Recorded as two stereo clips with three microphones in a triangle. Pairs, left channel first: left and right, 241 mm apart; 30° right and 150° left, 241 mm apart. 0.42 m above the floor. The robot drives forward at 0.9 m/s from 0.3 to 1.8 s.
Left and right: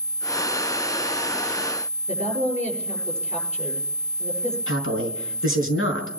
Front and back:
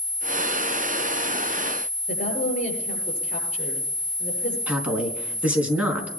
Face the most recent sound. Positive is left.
turn(degrees=65)